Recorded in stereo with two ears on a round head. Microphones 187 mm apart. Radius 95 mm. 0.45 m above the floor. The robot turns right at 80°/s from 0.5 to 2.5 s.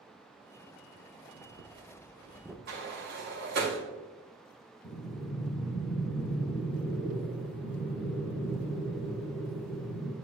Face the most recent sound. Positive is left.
turn(degrees=55)  # may be behind; listen again after turning